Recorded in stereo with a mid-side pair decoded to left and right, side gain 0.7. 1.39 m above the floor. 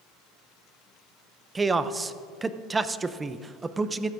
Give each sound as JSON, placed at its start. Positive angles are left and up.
{"t": 1.6, "sound": "a man speaking", "azimuth_deg": -20, "distance_m": 0.6}